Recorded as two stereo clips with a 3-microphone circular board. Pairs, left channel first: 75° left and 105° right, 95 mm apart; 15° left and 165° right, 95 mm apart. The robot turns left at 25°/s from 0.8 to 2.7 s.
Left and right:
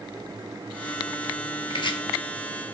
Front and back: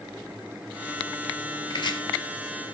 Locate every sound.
1.7 s chopping: 50° left, 1.0 m; by 2.0 s 45° left, 1.0 m